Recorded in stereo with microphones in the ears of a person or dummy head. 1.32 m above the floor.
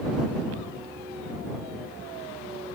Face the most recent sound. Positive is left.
No sound to turn to.